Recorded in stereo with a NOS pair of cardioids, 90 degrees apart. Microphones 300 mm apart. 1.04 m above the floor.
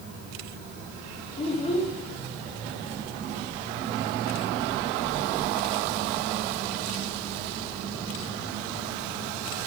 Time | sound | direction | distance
1.4 | a child speaking | 20° left | 0.8 m